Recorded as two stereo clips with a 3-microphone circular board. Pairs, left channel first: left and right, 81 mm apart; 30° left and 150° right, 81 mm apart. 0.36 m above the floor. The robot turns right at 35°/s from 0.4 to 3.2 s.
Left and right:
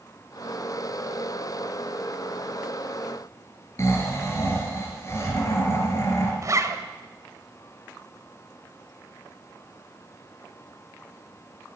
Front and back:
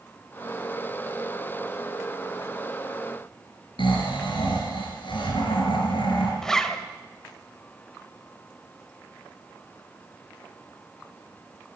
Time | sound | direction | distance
3.8 | snoring | 35° left | 3.5 m
6.4 | a zipper | 55° right | 0.9 m